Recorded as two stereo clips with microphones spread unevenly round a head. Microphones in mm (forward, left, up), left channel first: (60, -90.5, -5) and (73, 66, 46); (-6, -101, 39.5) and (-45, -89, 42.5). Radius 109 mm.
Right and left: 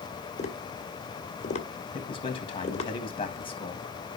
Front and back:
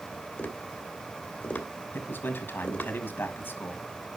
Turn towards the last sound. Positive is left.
turn(degrees=-40)